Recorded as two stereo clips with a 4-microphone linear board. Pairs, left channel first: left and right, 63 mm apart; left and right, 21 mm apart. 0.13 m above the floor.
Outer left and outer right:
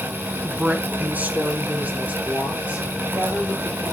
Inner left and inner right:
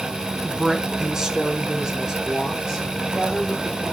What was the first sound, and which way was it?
A woman speaking, 15° right (ahead or behind).